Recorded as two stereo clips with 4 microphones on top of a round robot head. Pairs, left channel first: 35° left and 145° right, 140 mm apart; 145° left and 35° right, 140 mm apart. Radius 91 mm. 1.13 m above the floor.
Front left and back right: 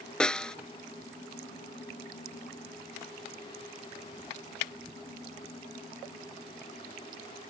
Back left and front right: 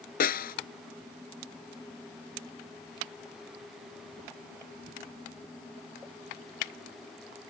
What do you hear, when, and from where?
0.2 s a snare drum: 120° left